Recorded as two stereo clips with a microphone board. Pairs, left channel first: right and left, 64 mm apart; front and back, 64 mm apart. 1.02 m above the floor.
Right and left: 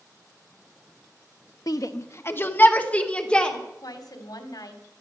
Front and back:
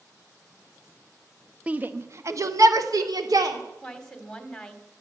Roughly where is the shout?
Right.